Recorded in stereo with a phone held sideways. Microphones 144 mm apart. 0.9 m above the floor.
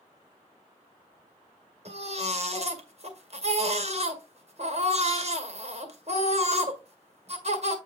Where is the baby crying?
50° right (ahead or behind), 1.7 m.